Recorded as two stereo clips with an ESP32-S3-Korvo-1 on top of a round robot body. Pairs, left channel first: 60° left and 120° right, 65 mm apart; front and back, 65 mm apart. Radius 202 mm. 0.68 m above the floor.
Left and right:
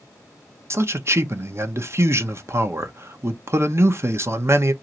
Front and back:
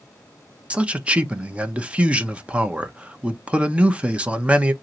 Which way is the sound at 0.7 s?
120° right.